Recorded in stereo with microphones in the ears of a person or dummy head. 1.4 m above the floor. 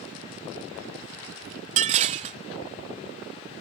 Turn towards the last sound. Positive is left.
turn(degrees=-35)  # may be behind; listen again after turning